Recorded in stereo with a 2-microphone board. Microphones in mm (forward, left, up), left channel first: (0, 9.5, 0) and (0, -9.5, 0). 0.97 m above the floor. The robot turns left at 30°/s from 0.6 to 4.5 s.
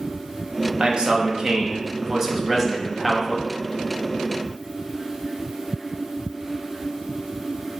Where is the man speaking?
120° right, 0.7 m; by 3.5 s 160° left, 0.7 m.